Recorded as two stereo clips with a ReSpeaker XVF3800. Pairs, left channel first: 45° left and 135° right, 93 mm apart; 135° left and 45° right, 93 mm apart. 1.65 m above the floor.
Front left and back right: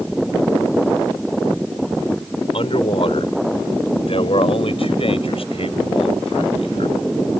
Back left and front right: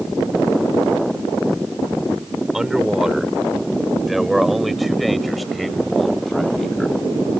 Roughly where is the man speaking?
Ahead left.